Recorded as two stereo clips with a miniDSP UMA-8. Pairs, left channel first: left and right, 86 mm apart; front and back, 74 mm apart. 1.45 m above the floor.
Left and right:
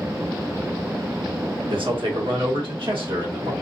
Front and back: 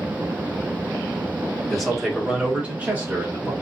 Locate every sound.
1.7 s a man speaking: 85° right, 1.1 m; by 3.5 s 115° right, 2.0 m